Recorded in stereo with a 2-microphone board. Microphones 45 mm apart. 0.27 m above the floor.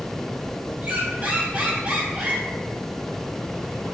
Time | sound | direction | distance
0.8 | a squeak | 35° right (ahead or behind) | 1.1 m